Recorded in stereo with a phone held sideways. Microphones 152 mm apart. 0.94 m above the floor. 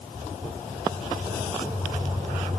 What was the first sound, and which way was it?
Only background noise.